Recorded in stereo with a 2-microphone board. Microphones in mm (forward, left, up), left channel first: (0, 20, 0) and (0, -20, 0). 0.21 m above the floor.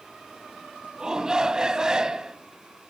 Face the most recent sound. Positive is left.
turn(degrees=-20)  # may be behind; listen again after turning